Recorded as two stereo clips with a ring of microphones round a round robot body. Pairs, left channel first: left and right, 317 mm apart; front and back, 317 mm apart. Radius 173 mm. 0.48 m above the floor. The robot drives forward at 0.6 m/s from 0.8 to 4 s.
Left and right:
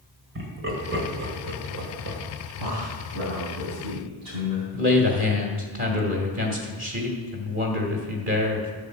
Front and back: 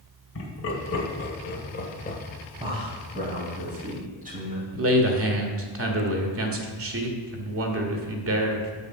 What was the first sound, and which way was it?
Laughter, 40° right.